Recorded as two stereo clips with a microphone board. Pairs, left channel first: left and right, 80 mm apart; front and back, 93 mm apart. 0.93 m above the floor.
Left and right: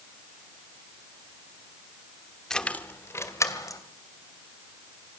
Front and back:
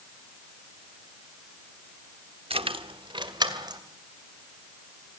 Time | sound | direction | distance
2.5 | keys jangling | 175° left | 1.3 m